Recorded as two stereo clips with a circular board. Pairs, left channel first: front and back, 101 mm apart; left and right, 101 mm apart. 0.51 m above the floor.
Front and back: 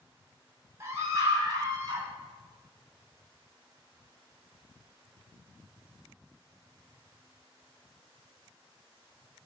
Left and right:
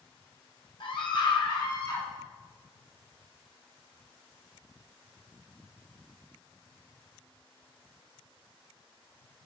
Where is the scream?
120° left, 4 m; by 2.1 s 140° left, 4 m.